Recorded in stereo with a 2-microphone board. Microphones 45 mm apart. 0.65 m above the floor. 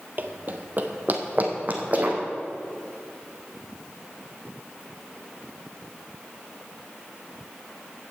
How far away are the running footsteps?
About 0.8 m.